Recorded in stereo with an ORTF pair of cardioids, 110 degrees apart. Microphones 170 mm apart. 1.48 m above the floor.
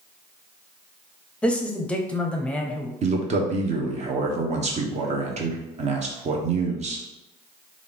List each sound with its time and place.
1.4 s a man speaking: 5° left, 0.8 m
3.0 s a man speaking: 45° right, 1.0 m